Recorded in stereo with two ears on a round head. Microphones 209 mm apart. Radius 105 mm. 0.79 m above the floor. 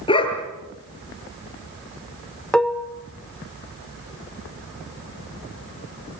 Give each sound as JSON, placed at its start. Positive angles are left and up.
{"t": 0.1, "sound": "a dog barking", "side_deg": 20, "distance_m": 5.0}
{"t": 2.5, "sound": "dishes clattering", "side_deg": 5, "distance_m": 1.2}